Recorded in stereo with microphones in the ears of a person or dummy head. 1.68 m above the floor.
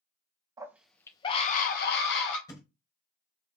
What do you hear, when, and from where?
0.6 s a scream: 20° right (ahead or behind), 1.0 m; by 2.4 s 65° left (ahead or behind), 1.8 m
2.5 s a thud: 20° left (ahead or behind), 1.9 m